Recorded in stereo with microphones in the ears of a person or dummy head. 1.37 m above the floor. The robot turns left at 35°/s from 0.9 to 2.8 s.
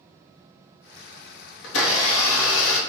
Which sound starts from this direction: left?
A blender, at 1.6 s.